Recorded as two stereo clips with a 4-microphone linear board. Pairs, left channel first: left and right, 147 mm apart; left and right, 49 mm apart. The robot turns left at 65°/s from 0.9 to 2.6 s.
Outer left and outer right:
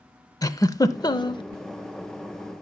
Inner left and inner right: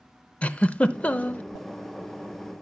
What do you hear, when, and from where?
0.4 s a giggle: 130° left, 0.6 m; by 1.4 s 95° left, 0.6 m